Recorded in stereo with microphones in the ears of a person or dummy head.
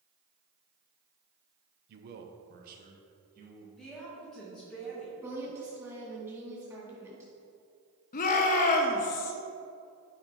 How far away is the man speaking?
About 0.7 m.